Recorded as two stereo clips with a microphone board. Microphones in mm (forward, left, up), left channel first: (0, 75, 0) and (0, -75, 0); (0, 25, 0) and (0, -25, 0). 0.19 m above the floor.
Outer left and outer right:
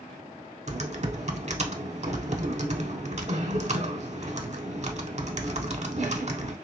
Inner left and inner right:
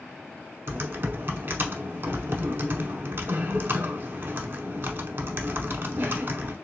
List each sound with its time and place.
0.7 s typing on a keyboard: 50° right (ahead or behind), 0.7 m